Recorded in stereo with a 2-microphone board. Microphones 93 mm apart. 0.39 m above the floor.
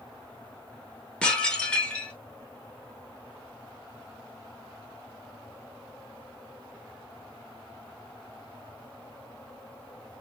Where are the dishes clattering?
10° left (ahead or behind), 0.5 m.